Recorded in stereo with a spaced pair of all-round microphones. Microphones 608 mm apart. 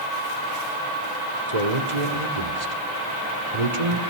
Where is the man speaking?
85° right, 2.5 m.